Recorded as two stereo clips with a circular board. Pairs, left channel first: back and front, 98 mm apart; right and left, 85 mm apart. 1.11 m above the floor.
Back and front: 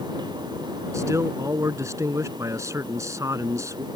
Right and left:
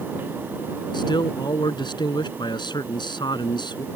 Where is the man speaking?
60° right.